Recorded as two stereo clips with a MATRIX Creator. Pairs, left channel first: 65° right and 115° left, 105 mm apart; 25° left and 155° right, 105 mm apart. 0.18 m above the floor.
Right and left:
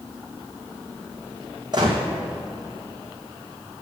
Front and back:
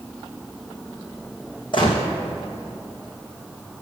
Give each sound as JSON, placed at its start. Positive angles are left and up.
{"t": 1.7, "sound": "a gunshot", "azimuth_deg": 65, "distance_m": 1.5}